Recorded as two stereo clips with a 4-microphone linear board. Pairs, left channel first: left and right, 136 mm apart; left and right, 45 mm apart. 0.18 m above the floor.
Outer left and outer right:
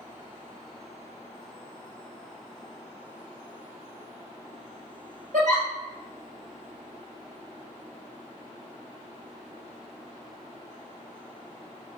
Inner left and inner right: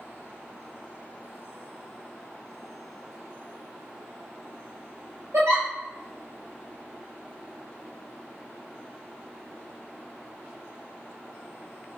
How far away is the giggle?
About 1.9 m.